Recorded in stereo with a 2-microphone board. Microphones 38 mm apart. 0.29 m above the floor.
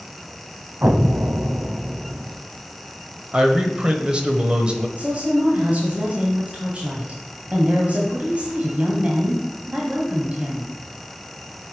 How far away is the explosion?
About 0.5 m.